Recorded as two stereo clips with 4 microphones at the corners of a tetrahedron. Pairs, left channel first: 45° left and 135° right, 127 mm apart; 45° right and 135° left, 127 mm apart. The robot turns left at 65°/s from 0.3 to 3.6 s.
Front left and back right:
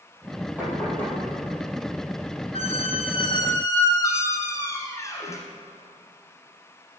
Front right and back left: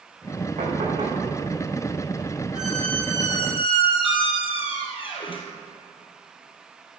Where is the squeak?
55° left, 1.6 m; by 5.5 s 15° right, 1.6 m.